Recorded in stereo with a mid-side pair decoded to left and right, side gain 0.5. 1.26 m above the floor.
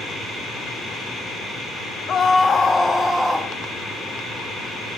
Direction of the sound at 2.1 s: 50° left.